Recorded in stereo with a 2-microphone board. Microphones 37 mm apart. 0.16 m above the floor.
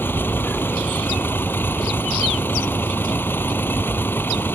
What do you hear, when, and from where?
0.0 s a vehicle: 75° left (ahead or behind)